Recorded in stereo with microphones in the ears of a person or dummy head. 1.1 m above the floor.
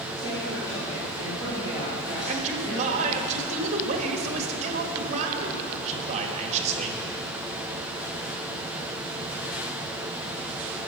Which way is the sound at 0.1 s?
20° left (ahead or behind).